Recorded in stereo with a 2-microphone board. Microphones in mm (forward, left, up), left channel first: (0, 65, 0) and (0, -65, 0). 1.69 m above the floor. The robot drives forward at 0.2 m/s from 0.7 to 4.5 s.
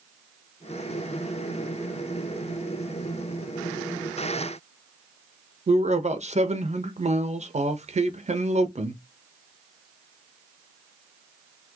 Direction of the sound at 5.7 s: 60° right (ahead or behind).